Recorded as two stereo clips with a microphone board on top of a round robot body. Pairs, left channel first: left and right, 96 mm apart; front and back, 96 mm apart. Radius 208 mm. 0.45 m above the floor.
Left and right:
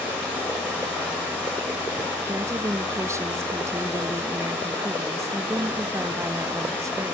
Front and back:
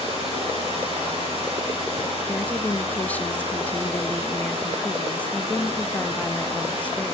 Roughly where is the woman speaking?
Ahead right.